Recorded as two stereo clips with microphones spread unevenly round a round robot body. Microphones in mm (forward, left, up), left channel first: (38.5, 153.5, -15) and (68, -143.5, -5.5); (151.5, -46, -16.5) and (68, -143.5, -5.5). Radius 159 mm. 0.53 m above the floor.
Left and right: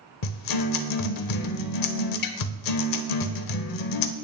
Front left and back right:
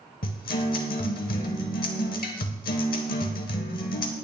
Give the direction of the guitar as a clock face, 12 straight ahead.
10 o'clock.